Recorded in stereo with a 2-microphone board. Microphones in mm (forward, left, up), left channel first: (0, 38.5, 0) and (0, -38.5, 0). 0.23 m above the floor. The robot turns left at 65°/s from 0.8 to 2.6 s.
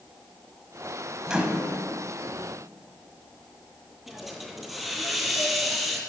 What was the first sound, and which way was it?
A microwave, 10° right (ahead or behind).